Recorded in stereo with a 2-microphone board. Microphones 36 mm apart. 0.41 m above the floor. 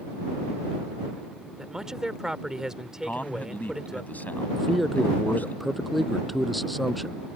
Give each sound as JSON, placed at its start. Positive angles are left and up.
{"t": 1.6, "sound": "a man speaking", "side_deg": -15}
{"t": 3.0, "sound": "a man speaking", "side_deg": 50}
{"t": 4.6, "sound": "a man speaking", "side_deg": 0}